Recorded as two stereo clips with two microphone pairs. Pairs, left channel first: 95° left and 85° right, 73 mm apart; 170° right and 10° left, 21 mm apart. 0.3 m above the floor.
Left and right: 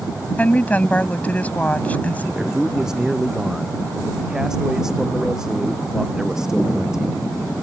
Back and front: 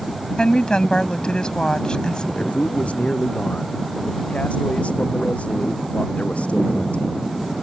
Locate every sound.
0.4 s a woman speaking: 160° left
2.3 s a man speaking: 170° right